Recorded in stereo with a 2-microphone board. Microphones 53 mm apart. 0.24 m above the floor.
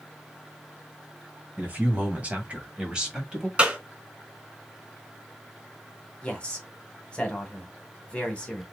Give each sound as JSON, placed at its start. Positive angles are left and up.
{"t": 1.6, "sound": "a man speaking", "side_deg": -35, "distance_m": 2.0}
{"t": 3.6, "sound": "a clap", "side_deg": -20, "distance_m": 2.5}
{"t": 6.2, "sound": "a man speaking", "side_deg": 20, "distance_m": 1.6}